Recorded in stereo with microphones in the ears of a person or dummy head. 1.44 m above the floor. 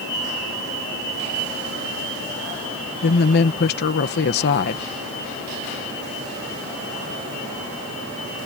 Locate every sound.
3.0 s a woman speaking: 55° left (ahead or behind)